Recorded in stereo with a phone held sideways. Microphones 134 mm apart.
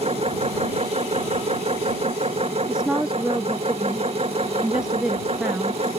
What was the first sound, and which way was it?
A machine running, 50° right (ahead or behind).